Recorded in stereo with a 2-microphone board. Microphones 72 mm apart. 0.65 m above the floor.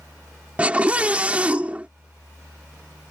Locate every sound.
0.6 s a scream: 20° right (ahead or behind)